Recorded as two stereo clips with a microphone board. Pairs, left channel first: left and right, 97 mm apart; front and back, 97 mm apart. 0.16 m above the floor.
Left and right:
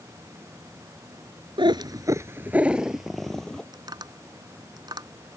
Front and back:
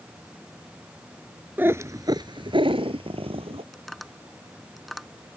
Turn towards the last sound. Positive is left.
turn(degrees=-90)